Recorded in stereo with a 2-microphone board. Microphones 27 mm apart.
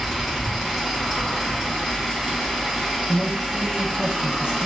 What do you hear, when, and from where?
0.0 s an engine running: centre (ahead or behind), 1.8 m
3.1 s a man speaking: 40° right (ahead or behind), 0.5 m